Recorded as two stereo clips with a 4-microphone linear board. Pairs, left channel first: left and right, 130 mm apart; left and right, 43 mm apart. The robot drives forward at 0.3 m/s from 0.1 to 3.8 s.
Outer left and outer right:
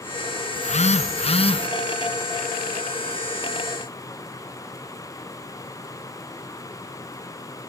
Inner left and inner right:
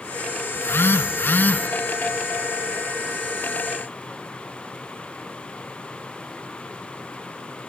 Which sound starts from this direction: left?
A phone buzzing, at 0.6 s.